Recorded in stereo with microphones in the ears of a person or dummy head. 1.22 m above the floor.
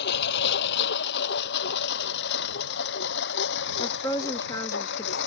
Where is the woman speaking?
20° left (ahead or behind).